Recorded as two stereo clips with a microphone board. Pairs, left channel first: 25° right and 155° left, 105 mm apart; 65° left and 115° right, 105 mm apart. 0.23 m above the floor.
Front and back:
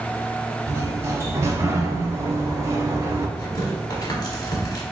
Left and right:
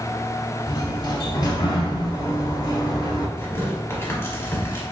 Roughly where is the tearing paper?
Ahead.